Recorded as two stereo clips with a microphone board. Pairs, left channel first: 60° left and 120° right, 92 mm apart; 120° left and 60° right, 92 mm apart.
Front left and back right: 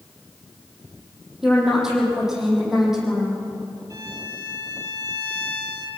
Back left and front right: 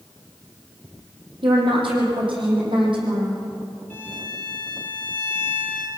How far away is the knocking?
I don't hear knocking.